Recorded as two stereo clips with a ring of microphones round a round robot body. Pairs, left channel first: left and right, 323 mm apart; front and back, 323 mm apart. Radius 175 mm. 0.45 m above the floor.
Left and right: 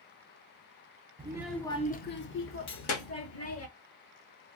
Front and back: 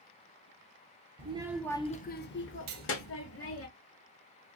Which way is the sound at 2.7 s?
130° left.